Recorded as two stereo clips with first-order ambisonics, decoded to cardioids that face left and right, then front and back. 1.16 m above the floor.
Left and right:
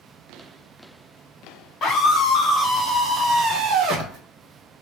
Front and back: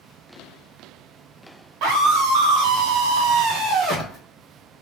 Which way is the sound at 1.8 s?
150° left.